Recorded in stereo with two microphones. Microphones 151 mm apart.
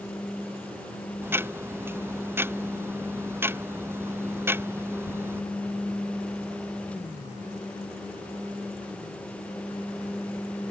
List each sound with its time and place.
1.2 s ticking: 15° right (ahead or behind)